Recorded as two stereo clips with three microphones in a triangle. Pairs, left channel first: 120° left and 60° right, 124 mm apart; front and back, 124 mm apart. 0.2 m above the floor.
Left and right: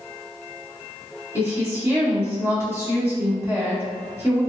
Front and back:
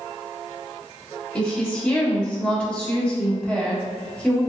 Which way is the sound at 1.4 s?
60° right.